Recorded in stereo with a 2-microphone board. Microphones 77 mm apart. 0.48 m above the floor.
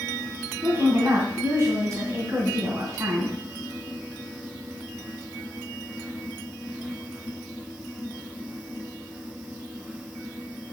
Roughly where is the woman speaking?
Right.